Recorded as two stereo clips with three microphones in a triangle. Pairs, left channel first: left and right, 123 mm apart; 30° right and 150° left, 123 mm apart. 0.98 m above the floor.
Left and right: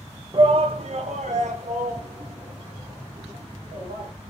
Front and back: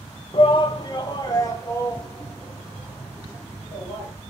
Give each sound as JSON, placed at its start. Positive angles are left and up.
{"t": 0.3, "sound": "a shout", "azimuth_deg": -60, "distance_m": 0.7}